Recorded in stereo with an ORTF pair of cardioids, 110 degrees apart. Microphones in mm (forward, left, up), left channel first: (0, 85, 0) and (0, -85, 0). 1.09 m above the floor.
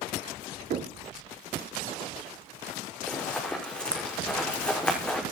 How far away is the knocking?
About 2 m.